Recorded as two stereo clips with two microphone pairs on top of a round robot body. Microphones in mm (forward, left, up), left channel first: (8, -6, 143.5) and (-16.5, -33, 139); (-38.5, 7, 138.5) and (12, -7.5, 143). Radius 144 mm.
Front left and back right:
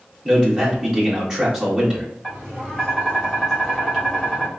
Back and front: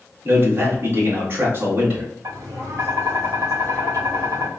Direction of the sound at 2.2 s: 35° right.